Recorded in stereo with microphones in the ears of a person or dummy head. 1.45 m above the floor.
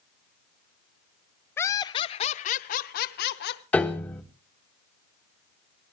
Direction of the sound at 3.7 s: 10° left (ahead or behind).